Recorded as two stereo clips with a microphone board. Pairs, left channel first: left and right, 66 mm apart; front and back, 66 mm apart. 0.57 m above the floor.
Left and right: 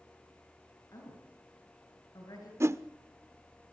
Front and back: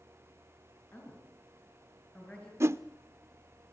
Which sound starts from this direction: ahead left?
A woman speaking, at 0.9 s.